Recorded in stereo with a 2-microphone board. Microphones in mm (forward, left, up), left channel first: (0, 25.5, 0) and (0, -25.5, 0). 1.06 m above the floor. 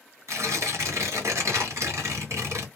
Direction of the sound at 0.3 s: 70° right (ahead or behind).